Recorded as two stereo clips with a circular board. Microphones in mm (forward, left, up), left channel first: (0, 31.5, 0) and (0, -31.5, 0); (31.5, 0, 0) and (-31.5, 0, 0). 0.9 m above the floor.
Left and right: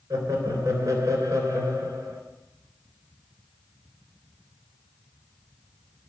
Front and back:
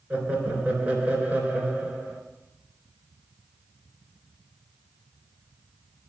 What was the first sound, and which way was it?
Laughter, 120° right.